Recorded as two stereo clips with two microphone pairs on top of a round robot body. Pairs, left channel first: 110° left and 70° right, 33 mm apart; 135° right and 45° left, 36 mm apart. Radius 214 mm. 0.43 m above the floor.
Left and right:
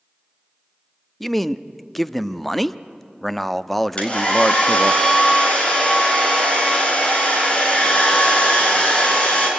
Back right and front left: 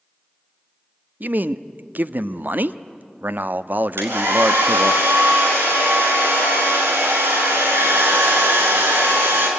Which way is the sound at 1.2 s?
25° left.